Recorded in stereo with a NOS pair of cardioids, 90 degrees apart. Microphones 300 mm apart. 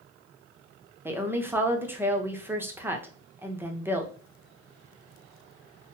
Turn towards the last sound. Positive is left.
turn(degrees=-5)